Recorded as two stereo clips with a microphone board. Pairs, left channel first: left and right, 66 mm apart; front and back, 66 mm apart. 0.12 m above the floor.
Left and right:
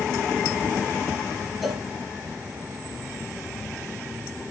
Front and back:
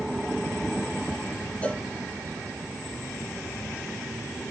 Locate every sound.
1.6 s a cowbell: 5° right, 0.6 m